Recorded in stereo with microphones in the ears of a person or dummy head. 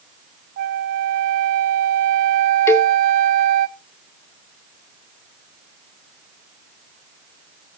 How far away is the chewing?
No chewing in this recording.